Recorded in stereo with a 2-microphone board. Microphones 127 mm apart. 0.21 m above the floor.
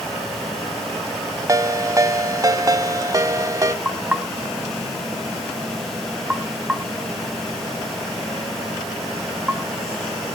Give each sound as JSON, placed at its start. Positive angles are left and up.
{"t": 1.5, "sound": "a ringtone", "side_deg": -30, "distance_m": 0.6}
{"t": 3.9, "sound": "knocking", "side_deg": -10, "distance_m": 1.3}